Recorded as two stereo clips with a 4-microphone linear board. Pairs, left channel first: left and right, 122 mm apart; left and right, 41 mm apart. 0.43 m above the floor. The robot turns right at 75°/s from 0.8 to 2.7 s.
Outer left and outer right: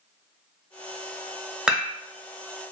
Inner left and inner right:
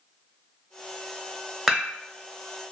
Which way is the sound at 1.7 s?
5° right (ahead or behind).